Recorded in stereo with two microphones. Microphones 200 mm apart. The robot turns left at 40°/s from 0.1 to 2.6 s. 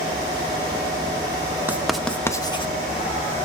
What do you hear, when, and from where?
1.7 s writing: 10° right (ahead or behind), 1.1 m; by 2.7 s 25° left (ahead or behind), 1.1 m